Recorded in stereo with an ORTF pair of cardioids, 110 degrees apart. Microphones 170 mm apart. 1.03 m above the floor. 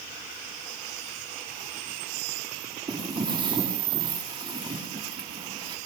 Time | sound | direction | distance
2.9 | footsteps | 25° right | 6.5 m